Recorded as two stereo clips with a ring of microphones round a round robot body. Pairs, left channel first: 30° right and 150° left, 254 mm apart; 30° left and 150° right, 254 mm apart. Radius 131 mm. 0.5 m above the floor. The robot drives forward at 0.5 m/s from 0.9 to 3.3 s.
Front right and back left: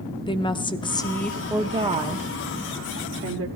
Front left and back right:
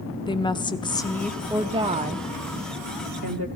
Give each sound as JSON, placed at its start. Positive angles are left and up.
{"t": 0.3, "sound": "a woman speaking", "azimuth_deg": 0, "distance_m": 0.7}